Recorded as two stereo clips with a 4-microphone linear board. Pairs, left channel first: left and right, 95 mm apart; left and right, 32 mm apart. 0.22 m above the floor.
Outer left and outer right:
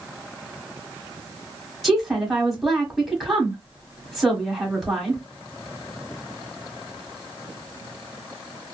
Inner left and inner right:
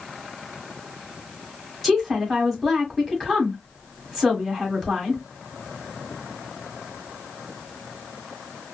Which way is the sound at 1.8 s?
Centre (ahead or behind).